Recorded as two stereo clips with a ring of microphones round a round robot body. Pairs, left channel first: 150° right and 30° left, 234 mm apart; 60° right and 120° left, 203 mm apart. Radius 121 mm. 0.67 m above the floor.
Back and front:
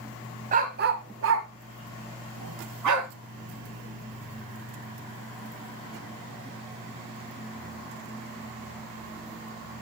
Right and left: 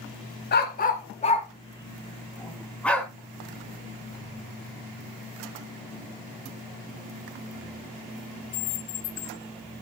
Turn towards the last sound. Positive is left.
turn(degrees=25)